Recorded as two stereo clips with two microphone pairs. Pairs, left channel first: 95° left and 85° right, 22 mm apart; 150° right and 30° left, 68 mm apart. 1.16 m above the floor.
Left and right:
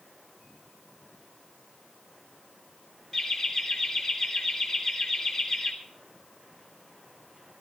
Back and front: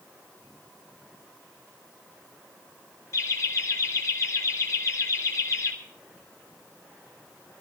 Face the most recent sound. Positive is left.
turn(degrees=170)